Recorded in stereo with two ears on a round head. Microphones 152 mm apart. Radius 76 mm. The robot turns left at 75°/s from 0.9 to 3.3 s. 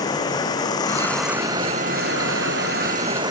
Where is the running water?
25° left; by 3.3 s 155° right.